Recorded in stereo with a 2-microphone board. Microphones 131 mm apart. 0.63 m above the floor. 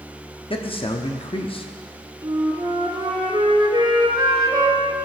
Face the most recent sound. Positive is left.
turn(degrees=-35)  # may be behind; listen again after turning